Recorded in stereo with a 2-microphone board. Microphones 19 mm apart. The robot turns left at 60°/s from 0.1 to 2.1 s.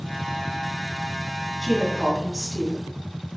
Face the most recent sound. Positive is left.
turn(degrees=20)  # may be behind; listen again after turning